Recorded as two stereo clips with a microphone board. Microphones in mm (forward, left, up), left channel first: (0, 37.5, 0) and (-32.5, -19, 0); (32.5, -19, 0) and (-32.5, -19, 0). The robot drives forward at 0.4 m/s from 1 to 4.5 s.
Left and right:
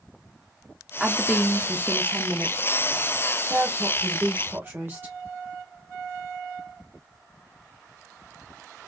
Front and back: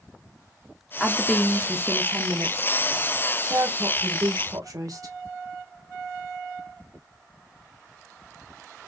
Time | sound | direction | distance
1.0 | a woman speaking | 50° right | 0.7 m